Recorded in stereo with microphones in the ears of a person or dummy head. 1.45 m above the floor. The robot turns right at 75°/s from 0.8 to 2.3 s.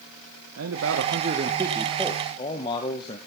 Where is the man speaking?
85° right, 1.4 m; by 3.2 s 25° left, 1.4 m.